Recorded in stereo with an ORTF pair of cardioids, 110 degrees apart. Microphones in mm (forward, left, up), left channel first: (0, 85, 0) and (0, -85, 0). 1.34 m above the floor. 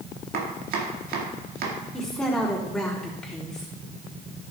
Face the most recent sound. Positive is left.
turn(degrees=5)